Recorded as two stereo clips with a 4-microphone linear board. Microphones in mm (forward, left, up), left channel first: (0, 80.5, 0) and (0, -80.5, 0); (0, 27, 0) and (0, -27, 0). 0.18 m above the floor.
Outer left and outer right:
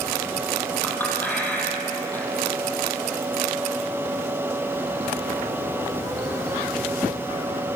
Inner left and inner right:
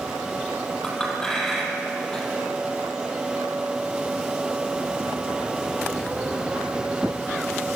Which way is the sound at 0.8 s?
10° left (ahead or behind).